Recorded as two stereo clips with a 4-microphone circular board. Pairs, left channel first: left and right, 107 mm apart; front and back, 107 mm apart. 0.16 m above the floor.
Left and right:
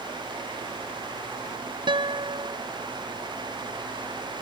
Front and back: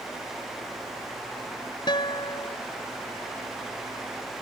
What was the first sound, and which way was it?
A guitar, 45° right.